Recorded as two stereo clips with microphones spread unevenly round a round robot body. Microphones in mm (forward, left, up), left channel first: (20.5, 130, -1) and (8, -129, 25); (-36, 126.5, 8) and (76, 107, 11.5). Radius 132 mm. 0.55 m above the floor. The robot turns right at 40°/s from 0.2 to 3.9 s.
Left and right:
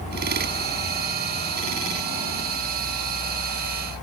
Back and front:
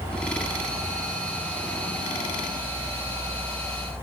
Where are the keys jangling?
I don't hear keys jangling.